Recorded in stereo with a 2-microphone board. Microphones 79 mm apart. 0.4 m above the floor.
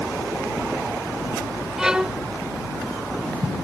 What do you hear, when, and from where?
1.8 s a violin: 10° right (ahead or behind)